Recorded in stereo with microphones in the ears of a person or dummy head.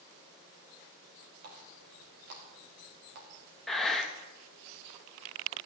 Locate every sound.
1.4 s a running tap: 55° right (ahead or behind), 2.5 m
3.7 s breathing: centre (ahead or behind), 1.1 m